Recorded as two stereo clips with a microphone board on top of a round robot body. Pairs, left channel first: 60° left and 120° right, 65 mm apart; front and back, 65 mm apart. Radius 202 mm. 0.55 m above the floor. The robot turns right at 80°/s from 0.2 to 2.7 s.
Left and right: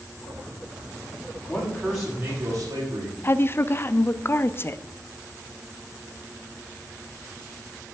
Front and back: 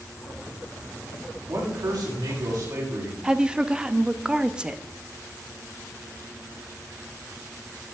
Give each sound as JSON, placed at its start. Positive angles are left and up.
{"t": 1.5, "sound": "a man speaking", "azimuth_deg": 115, "distance_m": 6.5}
{"t": 3.2, "sound": "a woman speaking", "azimuth_deg": 105, "distance_m": 0.8}